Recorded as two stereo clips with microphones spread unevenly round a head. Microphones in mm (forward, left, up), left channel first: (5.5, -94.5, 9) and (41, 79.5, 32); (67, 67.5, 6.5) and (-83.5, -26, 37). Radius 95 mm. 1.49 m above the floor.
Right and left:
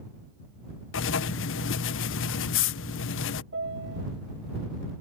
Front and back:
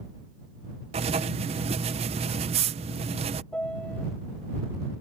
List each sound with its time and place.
0.9 s writing: 90° right
3.5 s a piano: 115° left